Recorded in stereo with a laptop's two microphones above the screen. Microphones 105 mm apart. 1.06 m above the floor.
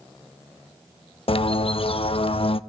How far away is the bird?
About 0.6 m.